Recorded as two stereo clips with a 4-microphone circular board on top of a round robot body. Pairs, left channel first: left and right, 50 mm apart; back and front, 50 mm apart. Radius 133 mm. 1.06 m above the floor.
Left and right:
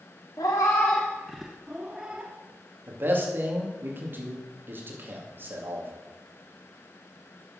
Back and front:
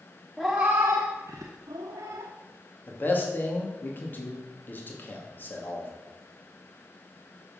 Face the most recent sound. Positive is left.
turn(degrees=-135)